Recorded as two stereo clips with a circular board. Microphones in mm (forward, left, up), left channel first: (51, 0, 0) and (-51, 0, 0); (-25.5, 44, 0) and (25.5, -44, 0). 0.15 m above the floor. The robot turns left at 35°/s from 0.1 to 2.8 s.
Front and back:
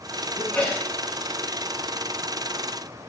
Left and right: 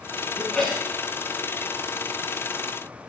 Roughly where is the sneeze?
Ahead left.